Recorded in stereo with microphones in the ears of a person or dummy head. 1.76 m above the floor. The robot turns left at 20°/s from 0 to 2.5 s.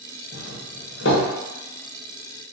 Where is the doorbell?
55° left (ahead or behind), 0.8 m; by 1.3 s 60° left (ahead or behind), 0.8 m.